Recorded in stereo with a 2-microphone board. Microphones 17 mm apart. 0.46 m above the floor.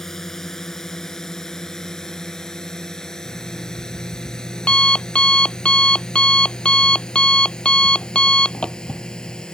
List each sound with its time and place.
0.0 s a drone: 25° left (ahead or behind); by 9.6 s 50° left (ahead or behind)
3.2 s an alarm clock: 85° left